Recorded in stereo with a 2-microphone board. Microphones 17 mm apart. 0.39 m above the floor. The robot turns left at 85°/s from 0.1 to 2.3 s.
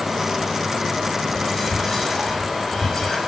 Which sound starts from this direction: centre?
Whispering, at 1.3 s.